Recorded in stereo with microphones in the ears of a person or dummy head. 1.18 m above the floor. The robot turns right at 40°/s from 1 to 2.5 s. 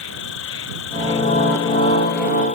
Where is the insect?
75° left; by 2.6 s 135° left.